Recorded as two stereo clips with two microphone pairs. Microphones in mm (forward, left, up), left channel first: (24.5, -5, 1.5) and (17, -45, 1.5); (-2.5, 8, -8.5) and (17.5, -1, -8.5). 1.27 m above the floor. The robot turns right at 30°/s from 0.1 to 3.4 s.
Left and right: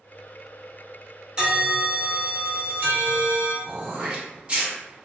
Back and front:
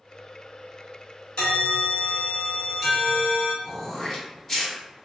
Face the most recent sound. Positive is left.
turn(degrees=-150)